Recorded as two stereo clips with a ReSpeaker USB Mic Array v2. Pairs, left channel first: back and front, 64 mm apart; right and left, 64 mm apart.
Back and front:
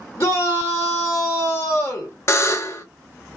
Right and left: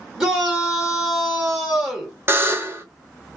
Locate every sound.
0.2 s a shout: 170° left, 1.6 m
2.3 s a buzzer: 140° left, 0.5 m